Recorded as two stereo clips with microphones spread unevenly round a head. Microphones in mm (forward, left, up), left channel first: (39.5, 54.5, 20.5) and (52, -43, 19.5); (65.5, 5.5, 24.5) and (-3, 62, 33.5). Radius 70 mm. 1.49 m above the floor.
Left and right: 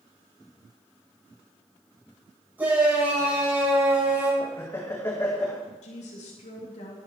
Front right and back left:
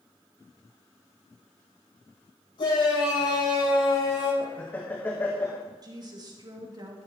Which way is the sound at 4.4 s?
30° left.